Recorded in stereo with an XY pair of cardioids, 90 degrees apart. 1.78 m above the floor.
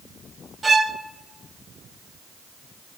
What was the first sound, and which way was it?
A violin, 30° right.